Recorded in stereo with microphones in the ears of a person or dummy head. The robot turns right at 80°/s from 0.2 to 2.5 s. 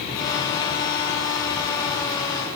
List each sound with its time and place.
Only background noise.